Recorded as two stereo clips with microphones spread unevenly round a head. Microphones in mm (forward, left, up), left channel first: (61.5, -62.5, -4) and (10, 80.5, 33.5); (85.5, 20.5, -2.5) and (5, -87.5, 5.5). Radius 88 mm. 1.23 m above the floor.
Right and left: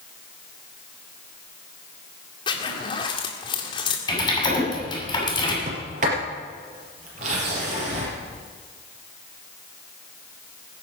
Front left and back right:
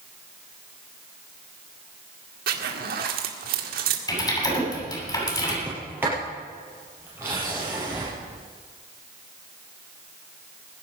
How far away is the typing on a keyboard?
About 8.5 m.